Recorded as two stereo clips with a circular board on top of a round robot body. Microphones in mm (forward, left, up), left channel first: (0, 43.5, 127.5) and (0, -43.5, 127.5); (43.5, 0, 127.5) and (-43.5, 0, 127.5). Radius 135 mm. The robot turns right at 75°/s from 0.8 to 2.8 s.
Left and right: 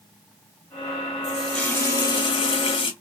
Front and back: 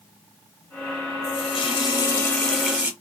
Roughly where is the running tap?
Ahead.